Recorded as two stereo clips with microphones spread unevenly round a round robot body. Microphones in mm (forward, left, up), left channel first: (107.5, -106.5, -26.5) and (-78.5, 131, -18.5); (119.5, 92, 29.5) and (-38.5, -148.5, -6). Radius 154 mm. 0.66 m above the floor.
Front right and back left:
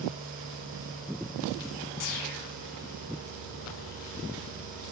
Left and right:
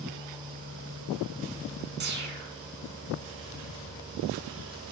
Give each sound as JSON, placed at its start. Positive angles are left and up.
{"t": 2.0, "sound": "a whoosh", "azimuth_deg": -75, "distance_m": 2.0}